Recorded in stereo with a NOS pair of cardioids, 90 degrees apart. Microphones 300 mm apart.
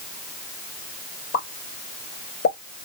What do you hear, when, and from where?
1.3 s a pop: 60° left, 2.0 m